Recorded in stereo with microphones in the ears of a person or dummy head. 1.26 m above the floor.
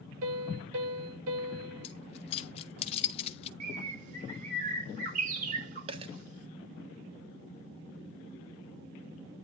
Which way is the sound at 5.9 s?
30° right (ahead or behind).